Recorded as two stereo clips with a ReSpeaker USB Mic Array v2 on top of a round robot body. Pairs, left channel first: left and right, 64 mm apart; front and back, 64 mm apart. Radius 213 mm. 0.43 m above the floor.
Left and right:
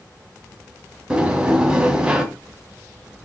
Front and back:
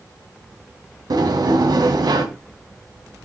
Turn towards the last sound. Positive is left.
turn(degrees=-165)